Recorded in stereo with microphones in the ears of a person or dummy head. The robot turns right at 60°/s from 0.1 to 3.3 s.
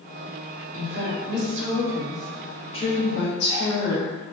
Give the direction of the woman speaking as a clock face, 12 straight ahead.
3 o'clock.